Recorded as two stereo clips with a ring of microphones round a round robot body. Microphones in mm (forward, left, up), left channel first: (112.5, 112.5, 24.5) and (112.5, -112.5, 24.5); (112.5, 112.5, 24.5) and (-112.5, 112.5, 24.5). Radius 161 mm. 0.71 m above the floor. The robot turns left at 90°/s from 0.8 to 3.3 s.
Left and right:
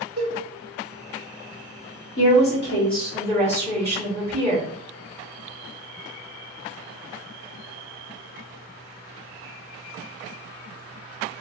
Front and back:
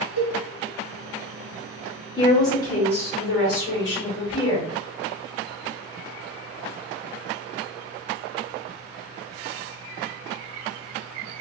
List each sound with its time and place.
0.2 s a cowbell: 160° right, 1.7 m
2.2 s a woman speaking: 75° left, 1.6 m; by 4.7 s 30° right, 1.6 m